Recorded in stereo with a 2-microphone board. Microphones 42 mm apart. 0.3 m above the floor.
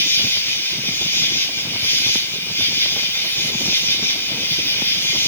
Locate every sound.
0.0 s an insect: 70° left (ahead or behind), 3.5 m